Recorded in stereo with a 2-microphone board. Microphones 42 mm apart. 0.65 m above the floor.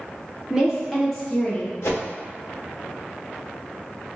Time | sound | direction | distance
0.5 | a woman speaking | 15° right (ahead or behind) | 1.2 m
1.8 | a whoosh | 85° left | 0.8 m